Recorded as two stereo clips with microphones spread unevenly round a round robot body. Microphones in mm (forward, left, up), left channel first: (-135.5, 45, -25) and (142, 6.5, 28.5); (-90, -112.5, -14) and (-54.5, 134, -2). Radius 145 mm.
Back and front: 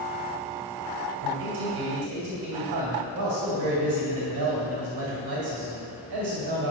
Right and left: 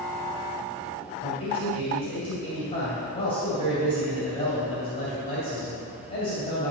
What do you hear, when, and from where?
1.2 s a man speaking: 30° right, 2.5 m